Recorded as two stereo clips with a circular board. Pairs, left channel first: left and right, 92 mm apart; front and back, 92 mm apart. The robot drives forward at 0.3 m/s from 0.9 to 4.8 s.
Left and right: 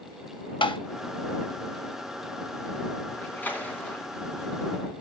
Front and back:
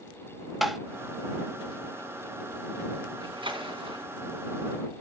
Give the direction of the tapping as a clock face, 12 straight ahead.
9 o'clock.